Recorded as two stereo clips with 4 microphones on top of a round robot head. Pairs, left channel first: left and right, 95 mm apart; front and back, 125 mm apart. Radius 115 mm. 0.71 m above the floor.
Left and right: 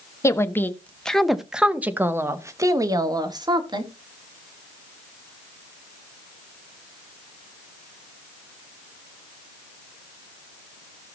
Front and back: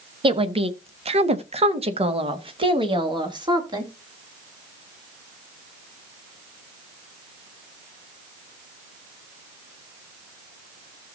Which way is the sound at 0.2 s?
145° left.